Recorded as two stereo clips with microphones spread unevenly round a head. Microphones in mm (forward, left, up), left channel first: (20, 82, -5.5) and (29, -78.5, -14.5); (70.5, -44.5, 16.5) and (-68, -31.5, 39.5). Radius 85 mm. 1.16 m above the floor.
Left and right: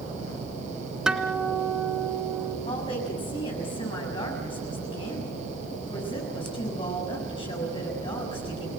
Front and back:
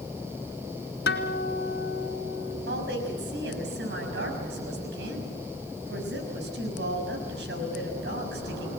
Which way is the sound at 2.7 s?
155° left.